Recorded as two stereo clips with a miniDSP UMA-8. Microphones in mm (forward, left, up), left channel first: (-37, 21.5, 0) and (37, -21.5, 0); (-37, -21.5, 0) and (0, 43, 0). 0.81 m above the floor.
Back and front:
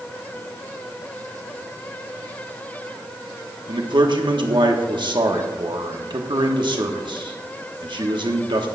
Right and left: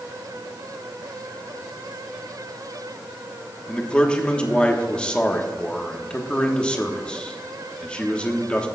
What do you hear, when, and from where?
3.7 s a man speaking: 45° right, 1.3 m